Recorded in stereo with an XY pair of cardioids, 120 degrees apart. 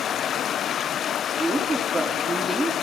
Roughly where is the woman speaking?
Ahead.